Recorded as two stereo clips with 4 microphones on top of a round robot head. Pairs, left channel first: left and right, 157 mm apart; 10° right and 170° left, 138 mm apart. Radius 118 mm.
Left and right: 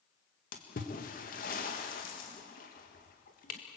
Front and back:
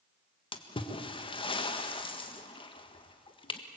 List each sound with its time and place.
0.5 s a splash: 40° left, 1.7 m